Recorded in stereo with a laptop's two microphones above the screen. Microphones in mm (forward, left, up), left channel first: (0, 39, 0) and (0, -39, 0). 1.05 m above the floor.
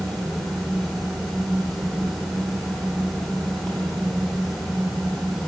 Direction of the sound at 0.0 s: 5° left (ahead or behind).